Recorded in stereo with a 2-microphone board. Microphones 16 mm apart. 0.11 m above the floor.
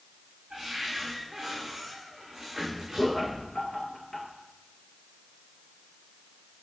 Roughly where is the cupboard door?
Right.